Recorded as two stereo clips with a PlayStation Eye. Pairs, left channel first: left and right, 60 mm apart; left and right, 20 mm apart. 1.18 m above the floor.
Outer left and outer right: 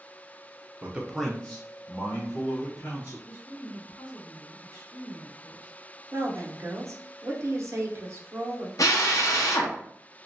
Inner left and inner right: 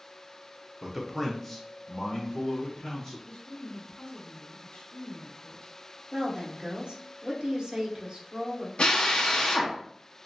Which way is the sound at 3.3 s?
85° left.